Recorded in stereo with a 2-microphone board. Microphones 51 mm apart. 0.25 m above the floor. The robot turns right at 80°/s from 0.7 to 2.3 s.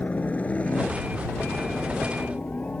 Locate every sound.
0.0 s a helicopter: 30° left (ahead or behind)